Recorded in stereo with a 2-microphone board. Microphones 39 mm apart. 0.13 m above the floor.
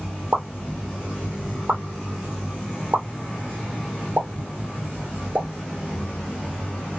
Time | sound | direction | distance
0.3 | a pop | 50° right (ahead or behind) | 2 m